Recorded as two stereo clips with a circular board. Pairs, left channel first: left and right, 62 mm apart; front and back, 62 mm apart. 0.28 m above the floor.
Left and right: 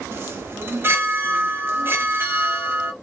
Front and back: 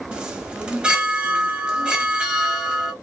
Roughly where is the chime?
Right.